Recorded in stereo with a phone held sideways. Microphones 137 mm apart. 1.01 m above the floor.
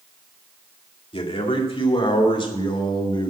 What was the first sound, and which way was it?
A man speaking, 45° left (ahead or behind).